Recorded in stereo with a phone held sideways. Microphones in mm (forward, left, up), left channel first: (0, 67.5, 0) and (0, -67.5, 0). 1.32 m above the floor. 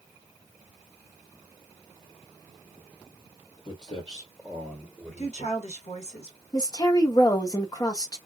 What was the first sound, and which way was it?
Footsteps, 35° left (ahead or behind).